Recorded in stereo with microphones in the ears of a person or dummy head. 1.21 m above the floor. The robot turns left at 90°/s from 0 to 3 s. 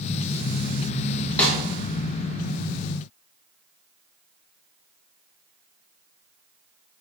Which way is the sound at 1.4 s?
10° left (ahead or behind).